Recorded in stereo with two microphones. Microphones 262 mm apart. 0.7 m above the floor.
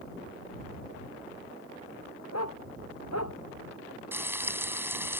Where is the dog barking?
75° left (ahead or behind).